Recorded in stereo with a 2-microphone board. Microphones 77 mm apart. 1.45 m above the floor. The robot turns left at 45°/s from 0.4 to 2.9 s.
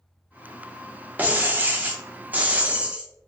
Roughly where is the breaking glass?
Right.